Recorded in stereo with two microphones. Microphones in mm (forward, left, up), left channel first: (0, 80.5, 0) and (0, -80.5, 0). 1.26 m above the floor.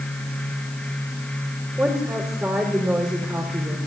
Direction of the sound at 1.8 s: 15° right (ahead or behind).